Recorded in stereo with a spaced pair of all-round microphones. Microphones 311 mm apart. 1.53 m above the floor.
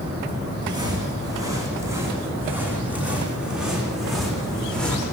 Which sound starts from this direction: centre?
Footsteps, at 0.6 s.